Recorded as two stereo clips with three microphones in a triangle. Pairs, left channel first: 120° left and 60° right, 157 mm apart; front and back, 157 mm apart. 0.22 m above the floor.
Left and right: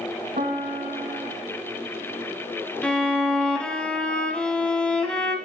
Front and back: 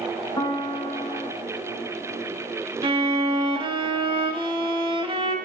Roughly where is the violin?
Behind.